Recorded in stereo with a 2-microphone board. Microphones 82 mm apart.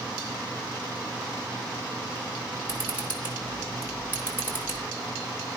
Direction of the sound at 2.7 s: 20° right (ahead or behind).